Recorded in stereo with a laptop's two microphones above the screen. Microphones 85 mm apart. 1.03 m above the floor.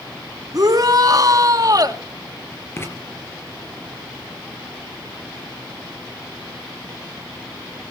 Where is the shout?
45° right (ahead or behind), 2.5 m.